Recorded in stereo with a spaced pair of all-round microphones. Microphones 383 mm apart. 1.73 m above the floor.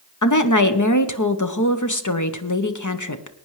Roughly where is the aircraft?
I don't hear an aircraft.